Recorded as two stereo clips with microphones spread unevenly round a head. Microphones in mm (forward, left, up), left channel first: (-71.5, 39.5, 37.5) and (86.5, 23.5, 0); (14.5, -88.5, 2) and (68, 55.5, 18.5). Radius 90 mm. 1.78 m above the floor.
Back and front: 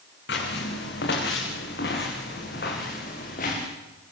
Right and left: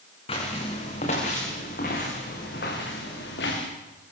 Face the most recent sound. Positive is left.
turn(degrees=-145)